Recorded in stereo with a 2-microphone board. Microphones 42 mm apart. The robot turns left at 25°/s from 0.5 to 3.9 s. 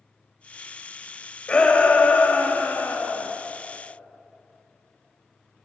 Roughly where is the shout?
Behind left.